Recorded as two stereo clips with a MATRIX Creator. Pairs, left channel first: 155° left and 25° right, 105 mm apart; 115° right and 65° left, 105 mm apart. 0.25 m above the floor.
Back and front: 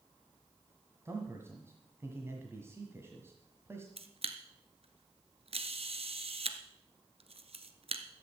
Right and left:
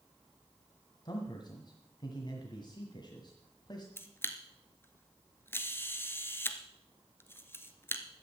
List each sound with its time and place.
1.1 s a man speaking: 80° right, 1.6 m
4.0 s a camera shutter: 45° right, 1.1 m